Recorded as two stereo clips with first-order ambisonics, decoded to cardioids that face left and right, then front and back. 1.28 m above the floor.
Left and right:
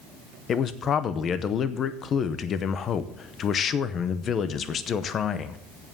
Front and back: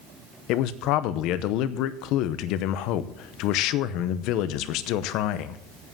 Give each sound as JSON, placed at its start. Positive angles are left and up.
{"t": 0.5, "sound": "a man speaking", "azimuth_deg": 30, "distance_m": 0.7}